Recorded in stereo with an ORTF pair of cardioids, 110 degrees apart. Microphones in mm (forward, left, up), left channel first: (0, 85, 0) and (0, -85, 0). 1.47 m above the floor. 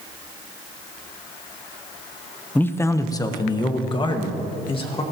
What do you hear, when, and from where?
2.5 s a man speaking: 10° left, 0.7 m; by 5.0 s 35° left, 2.5 m